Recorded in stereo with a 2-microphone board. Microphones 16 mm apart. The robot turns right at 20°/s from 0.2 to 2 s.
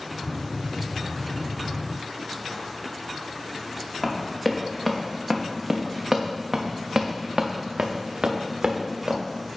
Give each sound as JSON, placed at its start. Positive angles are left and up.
{"t": 4.0, "sound": "running footsteps", "side_deg": 0, "distance_m": 2.0}